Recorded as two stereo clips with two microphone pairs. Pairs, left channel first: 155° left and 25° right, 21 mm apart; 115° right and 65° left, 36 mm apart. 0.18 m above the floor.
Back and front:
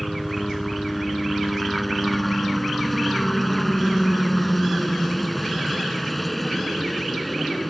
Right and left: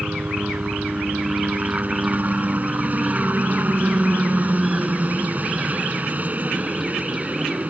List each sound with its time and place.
0.0 s a helicopter: 70° left